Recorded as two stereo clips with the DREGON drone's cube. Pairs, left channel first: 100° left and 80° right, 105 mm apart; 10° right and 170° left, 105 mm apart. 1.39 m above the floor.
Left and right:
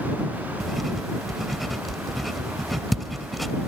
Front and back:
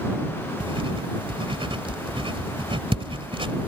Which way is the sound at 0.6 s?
170° right.